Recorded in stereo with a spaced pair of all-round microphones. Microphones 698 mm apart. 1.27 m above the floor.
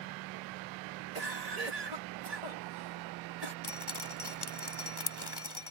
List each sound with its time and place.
1.1 s a cough: 60° right (ahead or behind)
3.6 s dripping: 35° left (ahead or behind)